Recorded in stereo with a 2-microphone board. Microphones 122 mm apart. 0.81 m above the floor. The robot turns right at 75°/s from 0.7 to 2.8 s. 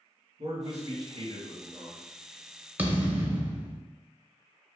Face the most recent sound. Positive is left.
turn(degrees=-15)  # may be behind; listen again after turning